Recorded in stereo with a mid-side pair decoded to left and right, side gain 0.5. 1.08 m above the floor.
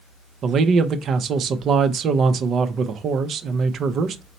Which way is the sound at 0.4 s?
55° right.